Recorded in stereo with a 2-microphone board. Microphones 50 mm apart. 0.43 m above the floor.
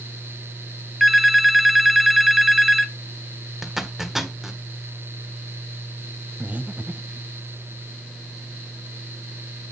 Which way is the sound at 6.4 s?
30° right (ahead or behind).